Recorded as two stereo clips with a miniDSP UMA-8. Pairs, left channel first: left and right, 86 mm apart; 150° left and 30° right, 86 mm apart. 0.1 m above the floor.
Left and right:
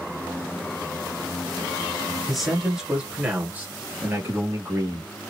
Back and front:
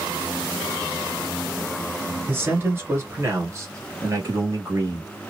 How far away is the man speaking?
About 1.7 m.